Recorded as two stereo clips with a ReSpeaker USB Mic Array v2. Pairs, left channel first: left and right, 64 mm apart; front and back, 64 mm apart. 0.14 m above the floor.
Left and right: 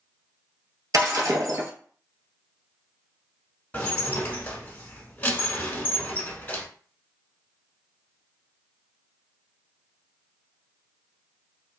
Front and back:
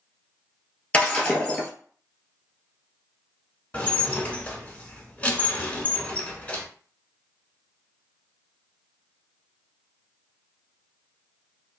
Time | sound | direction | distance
0.9 | breaking glass | 70° right | 1.1 m
3.7 | dishes clattering | 45° left | 0.9 m